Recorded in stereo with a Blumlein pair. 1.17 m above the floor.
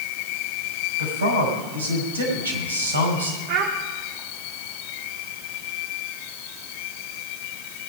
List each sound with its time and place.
1.0 s a man speaking: 70° right, 5.5 m
3.5 s a child speaking: 45° right, 1.3 m